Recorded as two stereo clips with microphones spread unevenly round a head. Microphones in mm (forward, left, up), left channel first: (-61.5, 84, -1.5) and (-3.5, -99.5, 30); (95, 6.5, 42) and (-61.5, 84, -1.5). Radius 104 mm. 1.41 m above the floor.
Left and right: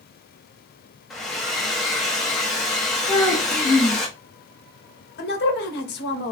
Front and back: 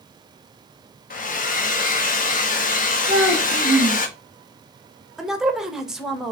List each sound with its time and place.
1.1 s a hair dryer: 20° left, 0.7 m
3.1 s a child speaking: 175° right, 1.0 m
5.2 s a woman speaking: 70° left, 0.9 m